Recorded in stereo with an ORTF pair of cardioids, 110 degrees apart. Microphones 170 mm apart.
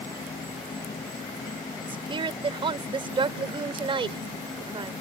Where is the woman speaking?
30° right.